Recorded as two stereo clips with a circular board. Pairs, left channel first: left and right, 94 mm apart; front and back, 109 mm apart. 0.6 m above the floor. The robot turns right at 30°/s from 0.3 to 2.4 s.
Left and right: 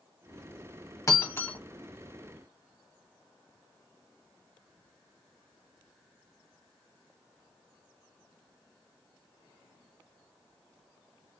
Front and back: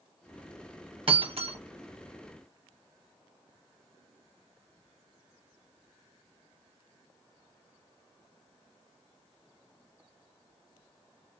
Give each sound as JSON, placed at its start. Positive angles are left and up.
{"t": 1.1, "sound": "breaking glass", "azimuth_deg": 145, "distance_m": 1.0}